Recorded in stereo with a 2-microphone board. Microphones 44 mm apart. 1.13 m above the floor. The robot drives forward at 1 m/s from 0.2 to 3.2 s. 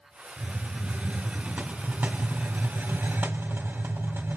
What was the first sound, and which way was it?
A hiss, 20° right (ahead or behind).